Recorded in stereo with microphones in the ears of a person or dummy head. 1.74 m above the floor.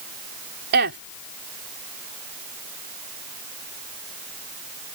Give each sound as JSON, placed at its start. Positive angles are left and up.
{"t": 0.7, "sound": "a woman speaking", "side_deg": -55}